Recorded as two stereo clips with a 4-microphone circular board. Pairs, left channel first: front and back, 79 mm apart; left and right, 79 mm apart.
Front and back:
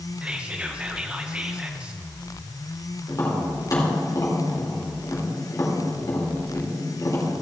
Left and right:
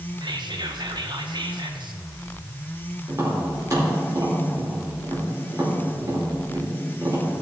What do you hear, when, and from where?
0.2 s whispering: 105° right, 1.3 m
3.1 s tapping: 45° right, 4 m